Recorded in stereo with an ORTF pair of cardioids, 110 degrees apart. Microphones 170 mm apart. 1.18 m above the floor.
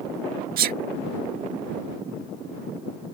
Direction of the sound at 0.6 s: 60° right.